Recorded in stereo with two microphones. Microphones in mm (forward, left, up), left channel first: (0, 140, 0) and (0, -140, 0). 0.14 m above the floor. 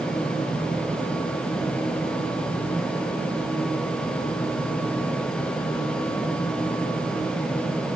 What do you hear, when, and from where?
Only background noise.